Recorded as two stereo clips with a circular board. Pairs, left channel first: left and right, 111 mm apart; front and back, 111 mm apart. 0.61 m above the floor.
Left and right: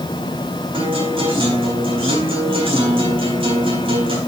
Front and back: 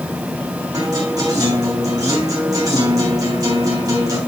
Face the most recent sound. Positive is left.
turn(degrees=-125)